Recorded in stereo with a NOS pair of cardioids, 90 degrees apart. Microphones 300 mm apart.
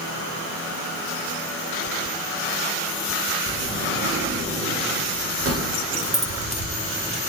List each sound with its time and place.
3.5 s a sliding door: 50° right, 6.5 m
5.9 s keys jangling: 20° right, 3.5 m